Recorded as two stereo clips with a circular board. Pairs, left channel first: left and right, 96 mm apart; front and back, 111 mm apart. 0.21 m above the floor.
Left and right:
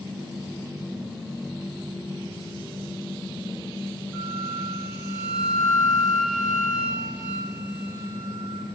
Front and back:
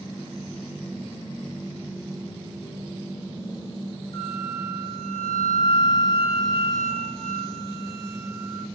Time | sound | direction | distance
4.1 | a flute | 10° right | 1.4 m